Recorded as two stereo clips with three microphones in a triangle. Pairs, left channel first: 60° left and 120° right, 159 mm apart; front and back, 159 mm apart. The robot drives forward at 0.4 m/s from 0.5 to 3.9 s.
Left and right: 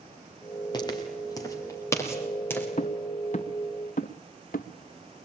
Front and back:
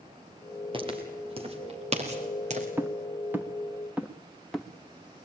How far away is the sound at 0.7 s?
About 5.5 m.